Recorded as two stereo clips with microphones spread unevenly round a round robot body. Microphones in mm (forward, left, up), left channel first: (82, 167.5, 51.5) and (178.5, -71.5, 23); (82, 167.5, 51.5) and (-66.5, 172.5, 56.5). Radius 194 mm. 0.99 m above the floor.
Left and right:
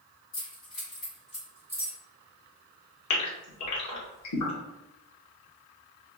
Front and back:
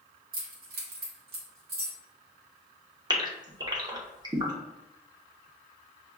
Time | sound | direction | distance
0.3 | keys jangling | 160° left | 1.0 m
3.1 | a gasp | 115° left | 1.0 m